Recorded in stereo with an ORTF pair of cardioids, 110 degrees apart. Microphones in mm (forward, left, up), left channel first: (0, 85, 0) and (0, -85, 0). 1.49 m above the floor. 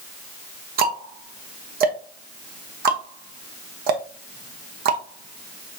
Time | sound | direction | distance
0.8 | ticking | 65° right | 1.2 m